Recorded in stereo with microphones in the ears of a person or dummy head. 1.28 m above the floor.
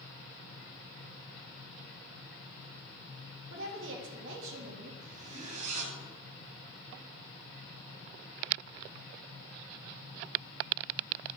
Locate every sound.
3.5 s a woman speaking: 70° right (ahead or behind), 2.5 m
5.0 s a zipper: 40° right (ahead or behind), 2.5 m